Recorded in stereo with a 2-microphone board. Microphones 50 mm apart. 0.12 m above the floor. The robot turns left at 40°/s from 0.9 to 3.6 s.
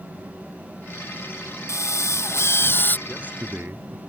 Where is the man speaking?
25° right (ahead or behind); by 4.0 s 45° right (ahead or behind).